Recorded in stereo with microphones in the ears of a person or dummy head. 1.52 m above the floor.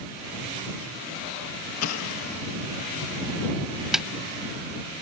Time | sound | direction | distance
1.8 | an explosion | 85° left | ?
3.9 | a snare drum | 5° right (ahead or behind) | ?